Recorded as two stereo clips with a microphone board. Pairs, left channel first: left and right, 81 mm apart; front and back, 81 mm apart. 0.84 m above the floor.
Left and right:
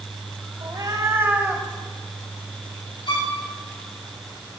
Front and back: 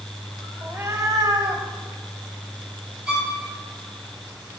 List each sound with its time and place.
0.6 s a cat meowing: 115° right, 1.3 m; by 1.7 s straight behind, 1.1 m
3.1 s a violin: 95° left, 3.5 m